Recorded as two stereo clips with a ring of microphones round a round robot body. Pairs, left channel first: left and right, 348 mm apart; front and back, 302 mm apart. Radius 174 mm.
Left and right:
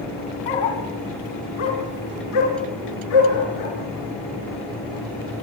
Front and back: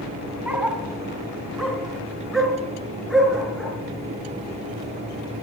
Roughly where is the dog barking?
Left.